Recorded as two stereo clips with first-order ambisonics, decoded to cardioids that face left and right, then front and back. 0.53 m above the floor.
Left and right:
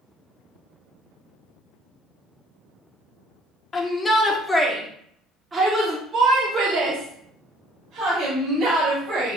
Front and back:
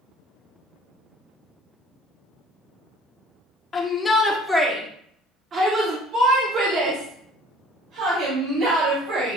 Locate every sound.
3.7 s a shout: 45° left, 1.2 m; by 9.4 s 145° right, 3 m